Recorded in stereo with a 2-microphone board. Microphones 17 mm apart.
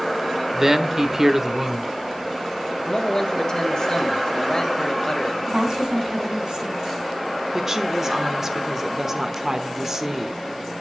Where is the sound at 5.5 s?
55° right (ahead or behind), 3 m.